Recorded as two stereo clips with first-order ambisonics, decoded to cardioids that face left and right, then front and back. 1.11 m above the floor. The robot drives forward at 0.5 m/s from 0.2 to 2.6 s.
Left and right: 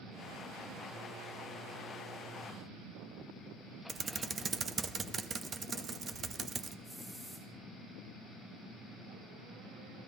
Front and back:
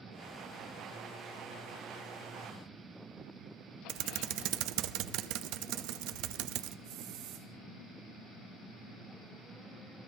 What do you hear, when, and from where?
3.9 s typing on a keyboard: 155° right, 0.7 m
6.8 s a hiss: 170° right, 3 m